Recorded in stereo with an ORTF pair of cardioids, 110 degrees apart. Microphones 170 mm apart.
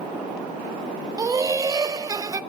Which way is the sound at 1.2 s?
20° right.